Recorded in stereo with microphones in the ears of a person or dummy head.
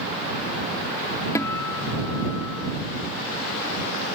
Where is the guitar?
20° left (ahead or behind).